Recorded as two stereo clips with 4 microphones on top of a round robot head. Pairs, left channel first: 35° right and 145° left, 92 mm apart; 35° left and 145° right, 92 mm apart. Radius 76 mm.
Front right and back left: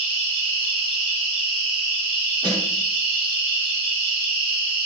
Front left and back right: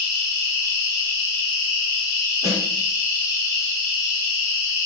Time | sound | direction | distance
0.0 | an insect | 160° left | 1.1 m
2.4 | a snare drum | 160° left | 1.4 m